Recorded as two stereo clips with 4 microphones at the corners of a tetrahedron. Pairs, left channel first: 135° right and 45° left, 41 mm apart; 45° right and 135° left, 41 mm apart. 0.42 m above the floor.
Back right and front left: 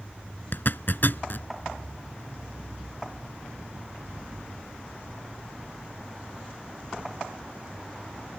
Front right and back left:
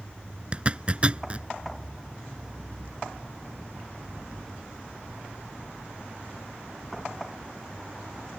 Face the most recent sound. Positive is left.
turn(degrees=-165)